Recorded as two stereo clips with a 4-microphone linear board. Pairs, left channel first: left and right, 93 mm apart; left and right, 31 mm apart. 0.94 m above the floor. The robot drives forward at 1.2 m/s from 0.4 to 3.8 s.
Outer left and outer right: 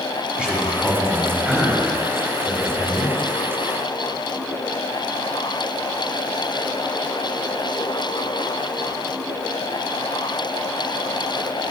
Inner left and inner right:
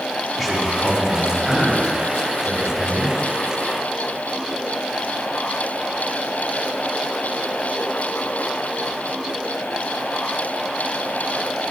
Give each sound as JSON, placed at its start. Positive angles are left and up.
{"t": 0.4, "sound": "a man speaking", "side_deg": -10, "distance_m": 2.5}